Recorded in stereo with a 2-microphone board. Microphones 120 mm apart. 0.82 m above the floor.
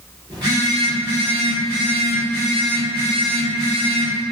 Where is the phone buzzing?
35° right (ahead or behind), 1.4 m.